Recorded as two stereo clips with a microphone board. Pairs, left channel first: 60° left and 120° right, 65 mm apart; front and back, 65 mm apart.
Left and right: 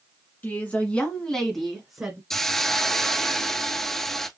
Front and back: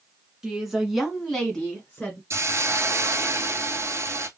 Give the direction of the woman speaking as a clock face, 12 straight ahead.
8 o'clock.